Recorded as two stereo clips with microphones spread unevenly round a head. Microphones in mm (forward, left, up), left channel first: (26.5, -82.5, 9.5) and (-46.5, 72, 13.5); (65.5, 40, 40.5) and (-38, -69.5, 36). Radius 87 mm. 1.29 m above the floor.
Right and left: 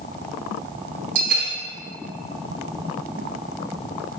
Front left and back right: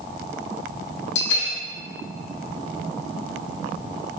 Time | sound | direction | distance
1.1 | a bell | 70° left | 0.8 m